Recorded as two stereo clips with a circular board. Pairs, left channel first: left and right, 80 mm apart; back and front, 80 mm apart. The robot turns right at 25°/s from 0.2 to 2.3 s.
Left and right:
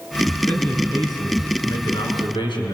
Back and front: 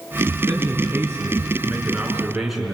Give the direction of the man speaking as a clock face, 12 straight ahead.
11 o'clock.